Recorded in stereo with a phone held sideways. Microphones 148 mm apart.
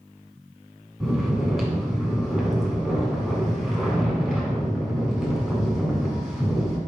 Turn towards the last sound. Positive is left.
turn(degrees=0)  # may be behind; listen again after turning